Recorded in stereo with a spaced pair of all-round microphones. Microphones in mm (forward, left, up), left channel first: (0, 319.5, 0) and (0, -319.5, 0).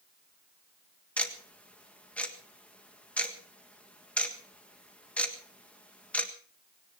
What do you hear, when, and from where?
1.2 s ticking: centre (ahead or behind), 1.6 m